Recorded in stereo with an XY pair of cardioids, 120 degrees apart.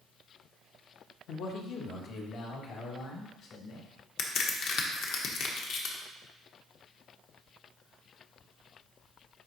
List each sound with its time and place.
1.3 s a man speaking: 70° left, 0.9 m; by 3.9 s 65° left, 3 m
4.2 s a crack: 70° left, 1.1 m